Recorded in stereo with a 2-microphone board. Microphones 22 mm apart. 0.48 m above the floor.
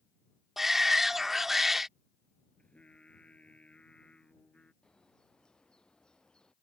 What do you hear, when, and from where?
0.6 s a shout: 15° right (ahead or behind)
2.6 s singing: 70° left (ahead or behind)
4.8 s a bird: 40° left (ahead or behind)